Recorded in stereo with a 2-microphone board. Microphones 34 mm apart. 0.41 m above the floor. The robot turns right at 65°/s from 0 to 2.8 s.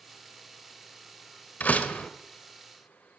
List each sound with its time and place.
1.6 s a door slam: 100° left, 1.3 m; by 2.1 s 130° left, 1.3 m